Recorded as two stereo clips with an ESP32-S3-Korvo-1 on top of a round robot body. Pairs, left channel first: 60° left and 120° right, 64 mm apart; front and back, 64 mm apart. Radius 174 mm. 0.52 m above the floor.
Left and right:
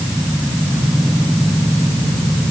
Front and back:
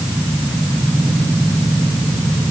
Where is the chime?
No chime in this recording.